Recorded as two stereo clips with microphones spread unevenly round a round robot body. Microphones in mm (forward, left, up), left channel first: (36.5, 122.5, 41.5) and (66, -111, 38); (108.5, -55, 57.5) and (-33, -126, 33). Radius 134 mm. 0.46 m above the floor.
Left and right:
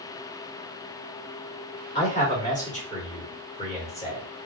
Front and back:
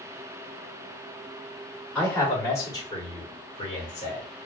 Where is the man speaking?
120° left, 1.5 m; by 4.2 s 45° left, 1.7 m.